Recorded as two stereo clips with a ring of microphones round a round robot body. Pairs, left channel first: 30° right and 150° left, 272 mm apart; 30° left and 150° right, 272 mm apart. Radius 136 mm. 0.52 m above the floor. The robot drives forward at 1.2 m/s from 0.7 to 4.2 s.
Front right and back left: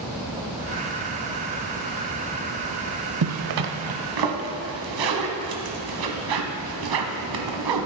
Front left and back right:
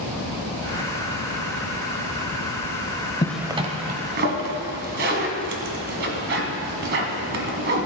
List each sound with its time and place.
3.2 s a zipper: 105° left, 0.6 m; by 7.9 s 160° left, 1.4 m